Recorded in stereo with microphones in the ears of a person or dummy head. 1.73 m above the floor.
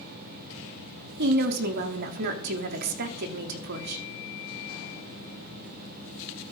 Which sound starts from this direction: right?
A woman speaking, at 1.2 s.